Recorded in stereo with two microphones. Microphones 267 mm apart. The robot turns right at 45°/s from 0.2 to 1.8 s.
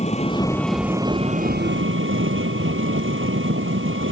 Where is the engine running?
155° left; by 4.1 s 130° right.